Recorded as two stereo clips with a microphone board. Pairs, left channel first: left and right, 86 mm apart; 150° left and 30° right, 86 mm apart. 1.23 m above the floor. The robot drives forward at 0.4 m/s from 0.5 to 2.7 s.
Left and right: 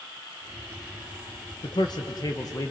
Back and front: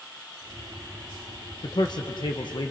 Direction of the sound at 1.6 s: 120° left.